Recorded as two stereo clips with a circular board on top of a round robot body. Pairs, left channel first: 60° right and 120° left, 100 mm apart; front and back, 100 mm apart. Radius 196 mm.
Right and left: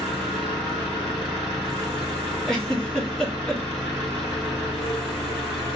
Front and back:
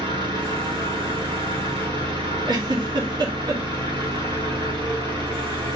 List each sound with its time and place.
0.0 s an engine running: 150° right, 1.9 m
2.5 s a giggle: 145° right, 1.3 m